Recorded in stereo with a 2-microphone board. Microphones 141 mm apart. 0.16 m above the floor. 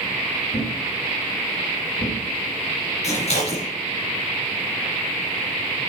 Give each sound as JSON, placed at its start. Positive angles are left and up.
{"t": 0.5, "sound": "a thud", "side_deg": 65, "distance_m": 3.0}
{"t": 3.0, "sound": "scissors", "side_deg": 50, "distance_m": 3.5}